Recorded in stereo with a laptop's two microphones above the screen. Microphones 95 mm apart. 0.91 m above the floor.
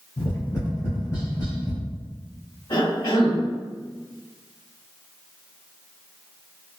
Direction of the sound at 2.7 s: 55° left (ahead or behind).